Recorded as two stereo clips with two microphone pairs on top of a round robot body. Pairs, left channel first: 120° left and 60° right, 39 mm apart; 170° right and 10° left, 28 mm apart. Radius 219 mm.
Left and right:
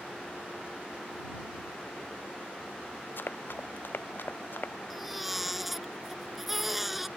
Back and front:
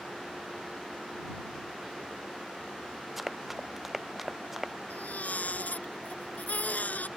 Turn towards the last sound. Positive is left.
turn(degrees=-145)